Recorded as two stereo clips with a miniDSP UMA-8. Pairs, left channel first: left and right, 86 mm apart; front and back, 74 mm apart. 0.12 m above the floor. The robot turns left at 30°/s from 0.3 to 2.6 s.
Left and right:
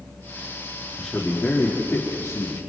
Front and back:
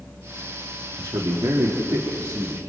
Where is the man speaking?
175° right, 4 m; by 2.6 s 135° left, 4 m.